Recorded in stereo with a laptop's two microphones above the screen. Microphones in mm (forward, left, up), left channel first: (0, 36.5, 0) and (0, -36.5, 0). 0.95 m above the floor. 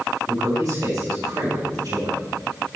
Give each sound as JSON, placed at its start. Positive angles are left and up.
{"t": 0.3, "sound": "a man speaking", "side_deg": -55, "distance_m": 4.0}